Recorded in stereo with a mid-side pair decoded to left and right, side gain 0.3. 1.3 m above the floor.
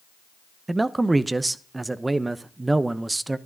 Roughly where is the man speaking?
Ahead right.